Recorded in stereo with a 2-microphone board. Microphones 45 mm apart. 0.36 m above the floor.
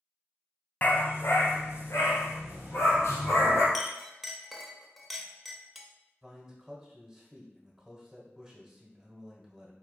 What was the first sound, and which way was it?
A dog barking, 40° left (ahead or behind).